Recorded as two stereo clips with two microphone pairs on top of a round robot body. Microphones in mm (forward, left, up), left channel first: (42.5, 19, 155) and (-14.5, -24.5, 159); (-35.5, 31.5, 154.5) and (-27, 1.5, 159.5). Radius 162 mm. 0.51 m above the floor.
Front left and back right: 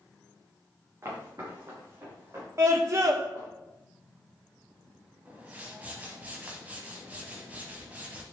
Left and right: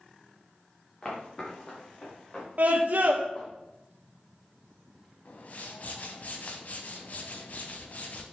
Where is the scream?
100° right, 1.0 m.